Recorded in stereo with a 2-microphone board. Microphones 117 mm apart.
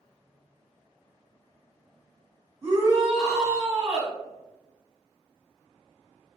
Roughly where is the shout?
Right.